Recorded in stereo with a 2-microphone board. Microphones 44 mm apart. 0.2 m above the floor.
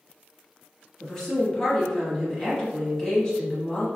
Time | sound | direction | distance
1.0 | a woman speaking | 20° left (ahead or behind) | 1.0 m